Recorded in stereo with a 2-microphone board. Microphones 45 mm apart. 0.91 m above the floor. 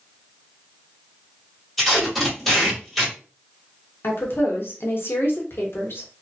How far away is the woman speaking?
About 1.0 m.